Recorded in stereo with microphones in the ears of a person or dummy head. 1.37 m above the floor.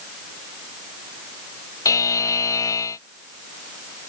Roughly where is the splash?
I don't hear a splash.